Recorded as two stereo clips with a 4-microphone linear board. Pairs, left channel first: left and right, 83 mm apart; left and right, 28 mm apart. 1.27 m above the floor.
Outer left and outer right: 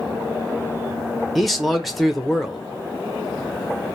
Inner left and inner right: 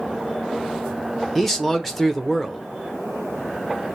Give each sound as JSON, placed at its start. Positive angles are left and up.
{"t": 1.4, "sound": "a man speaking", "side_deg": 0, "distance_m": 0.7}